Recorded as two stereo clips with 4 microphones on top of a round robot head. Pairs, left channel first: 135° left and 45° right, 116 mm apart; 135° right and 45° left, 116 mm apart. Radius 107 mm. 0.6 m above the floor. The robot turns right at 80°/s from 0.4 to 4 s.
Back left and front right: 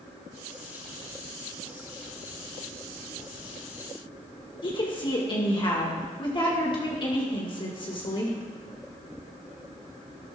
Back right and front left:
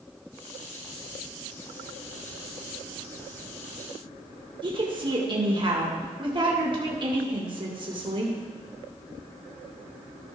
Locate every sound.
4.6 s a woman speaking: 90° left, 1.8 m